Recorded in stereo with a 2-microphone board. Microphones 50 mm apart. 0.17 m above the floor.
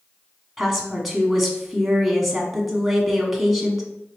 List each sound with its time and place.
0.6 s a woman speaking: centre (ahead or behind), 1.1 m